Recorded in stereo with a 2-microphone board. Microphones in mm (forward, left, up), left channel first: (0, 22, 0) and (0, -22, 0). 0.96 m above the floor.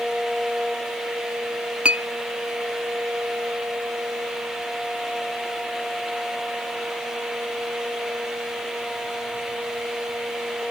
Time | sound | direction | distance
1.9 | a clink | 25° right (ahead or behind) | 0.5 m